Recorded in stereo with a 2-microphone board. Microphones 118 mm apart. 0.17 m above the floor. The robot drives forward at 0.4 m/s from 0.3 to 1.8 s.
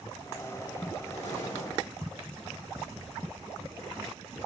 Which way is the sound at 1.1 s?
80° left.